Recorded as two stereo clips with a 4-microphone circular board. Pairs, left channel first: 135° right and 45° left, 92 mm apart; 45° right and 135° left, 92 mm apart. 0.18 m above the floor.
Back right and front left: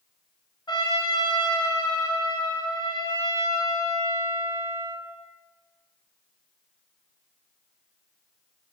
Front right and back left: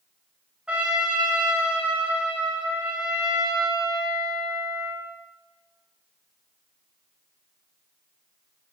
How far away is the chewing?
No chewing in this recording.